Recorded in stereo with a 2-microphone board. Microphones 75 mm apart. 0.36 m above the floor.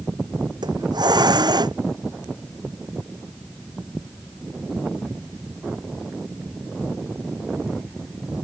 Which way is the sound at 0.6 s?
75° right (ahead or behind).